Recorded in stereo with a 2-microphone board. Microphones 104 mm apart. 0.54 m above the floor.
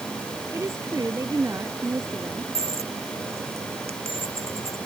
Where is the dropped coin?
80° right.